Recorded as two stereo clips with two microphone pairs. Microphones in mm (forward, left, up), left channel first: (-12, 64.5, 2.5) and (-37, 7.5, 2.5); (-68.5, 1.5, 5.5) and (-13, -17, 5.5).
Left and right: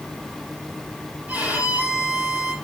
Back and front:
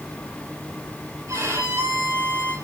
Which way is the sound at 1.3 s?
50° right.